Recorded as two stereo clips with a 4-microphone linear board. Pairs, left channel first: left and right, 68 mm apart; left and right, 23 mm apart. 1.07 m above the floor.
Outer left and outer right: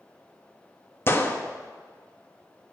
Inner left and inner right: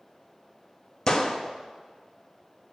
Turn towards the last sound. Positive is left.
turn(degrees=35)  # may be behind; listen again after turning